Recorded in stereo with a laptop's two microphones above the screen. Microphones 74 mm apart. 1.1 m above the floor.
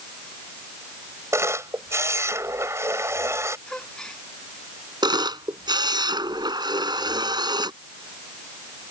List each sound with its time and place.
1.3 s a camera shutter: 40° right (ahead or behind)
3.7 s a gasp: 10° left (ahead or behind)
5.0 s a camera shutter: 85° right